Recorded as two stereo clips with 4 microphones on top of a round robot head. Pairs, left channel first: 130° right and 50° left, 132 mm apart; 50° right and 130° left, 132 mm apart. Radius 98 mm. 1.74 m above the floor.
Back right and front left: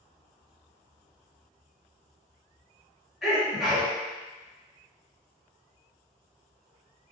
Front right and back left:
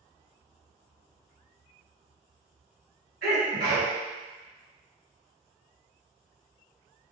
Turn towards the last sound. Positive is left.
turn(degrees=140)